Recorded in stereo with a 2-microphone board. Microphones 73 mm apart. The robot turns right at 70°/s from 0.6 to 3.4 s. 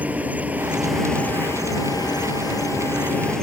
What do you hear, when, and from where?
0.0 s an insect: 25° right; by 3.4 s 170° left